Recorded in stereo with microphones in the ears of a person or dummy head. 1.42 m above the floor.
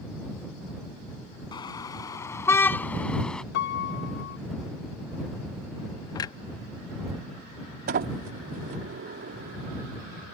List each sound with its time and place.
1.5 s a car horn: 25° left (ahead or behind); by 3.4 s centre (ahead or behind)
3.5 s a piano: 60° left (ahead or behind)
6.2 s a clunk: 20° left (ahead or behind)
7.9 s a sliding door: 50° right (ahead or behind)